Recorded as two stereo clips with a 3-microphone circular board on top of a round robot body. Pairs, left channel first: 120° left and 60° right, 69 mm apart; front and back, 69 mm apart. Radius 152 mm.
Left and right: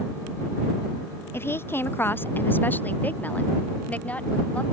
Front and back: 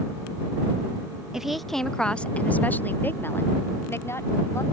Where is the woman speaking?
105° left; by 4.6 s 50° left.